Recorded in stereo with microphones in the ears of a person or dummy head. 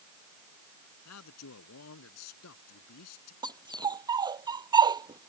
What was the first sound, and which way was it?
A man speaking, 90° left.